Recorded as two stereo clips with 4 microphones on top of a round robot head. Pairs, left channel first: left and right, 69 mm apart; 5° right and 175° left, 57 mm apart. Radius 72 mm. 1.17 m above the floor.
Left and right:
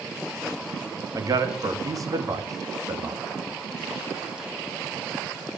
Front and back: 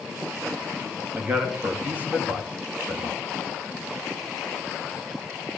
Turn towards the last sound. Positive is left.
turn(degrees=-125)